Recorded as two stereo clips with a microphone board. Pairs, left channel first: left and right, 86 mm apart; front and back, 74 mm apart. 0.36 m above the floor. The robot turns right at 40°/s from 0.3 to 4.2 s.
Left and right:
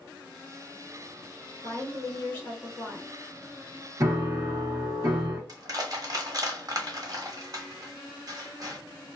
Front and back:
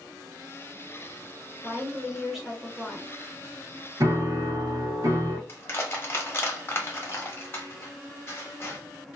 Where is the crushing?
55° right, 1.0 m.